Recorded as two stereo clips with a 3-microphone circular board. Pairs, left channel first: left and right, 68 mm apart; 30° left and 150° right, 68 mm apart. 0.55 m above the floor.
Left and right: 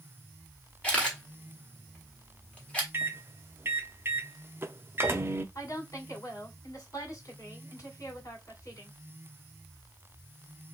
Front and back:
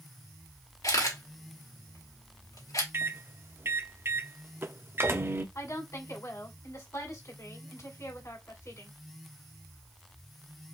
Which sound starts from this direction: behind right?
A microwave, at 2.9 s.